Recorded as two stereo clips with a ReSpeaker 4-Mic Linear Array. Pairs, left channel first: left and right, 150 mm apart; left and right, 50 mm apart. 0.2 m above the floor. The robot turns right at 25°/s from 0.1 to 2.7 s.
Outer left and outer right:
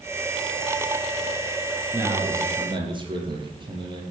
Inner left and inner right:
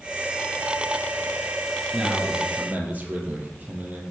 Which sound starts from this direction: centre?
A man speaking, at 1.9 s.